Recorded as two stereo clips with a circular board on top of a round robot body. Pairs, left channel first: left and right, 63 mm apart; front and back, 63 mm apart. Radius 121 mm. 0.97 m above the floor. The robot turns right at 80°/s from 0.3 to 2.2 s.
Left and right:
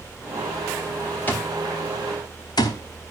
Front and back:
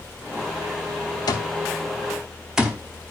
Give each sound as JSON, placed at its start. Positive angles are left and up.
{"t": 1.3, "sound": "an alarm clock", "azimuth_deg": 25, "distance_m": 0.7}